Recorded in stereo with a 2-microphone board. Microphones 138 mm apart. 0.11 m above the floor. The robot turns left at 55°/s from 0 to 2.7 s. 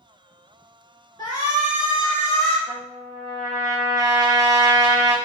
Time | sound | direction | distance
1.2 | a shout | 110° left | 1.5 m
2.7 | a trumpet | 30° right (ahead or behind) | 0.9 m